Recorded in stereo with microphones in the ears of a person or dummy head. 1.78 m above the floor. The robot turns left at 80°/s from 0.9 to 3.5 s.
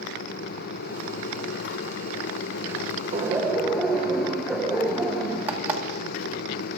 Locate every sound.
3.1 s laughter: 150° right, 2 m; by 5.4 s straight behind, 2 m
5.5 s an alarm clock: 10° right (ahead or behind), 2 m